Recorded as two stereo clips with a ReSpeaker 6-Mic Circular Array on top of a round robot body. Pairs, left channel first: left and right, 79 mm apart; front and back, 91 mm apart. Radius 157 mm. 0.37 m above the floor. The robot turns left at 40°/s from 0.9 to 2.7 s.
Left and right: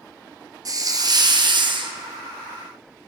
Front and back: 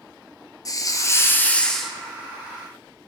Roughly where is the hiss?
Ahead right.